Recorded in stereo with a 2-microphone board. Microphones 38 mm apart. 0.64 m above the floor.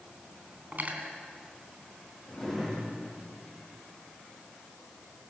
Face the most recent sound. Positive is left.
turn(degrees=10)  # may be behind; listen again after turning